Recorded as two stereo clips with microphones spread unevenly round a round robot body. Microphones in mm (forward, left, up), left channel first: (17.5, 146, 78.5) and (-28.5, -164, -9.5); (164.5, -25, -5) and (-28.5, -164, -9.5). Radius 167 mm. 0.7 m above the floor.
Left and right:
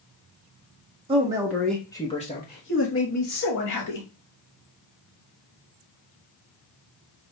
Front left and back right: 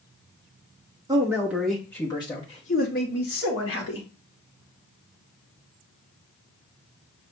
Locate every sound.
1.1 s a man speaking: 85° right, 1.1 m; by 4.1 s 55° left, 1.6 m